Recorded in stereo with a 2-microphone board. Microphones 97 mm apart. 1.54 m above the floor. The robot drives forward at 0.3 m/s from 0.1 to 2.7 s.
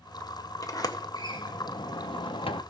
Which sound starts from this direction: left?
A sliding door, at 0.6 s.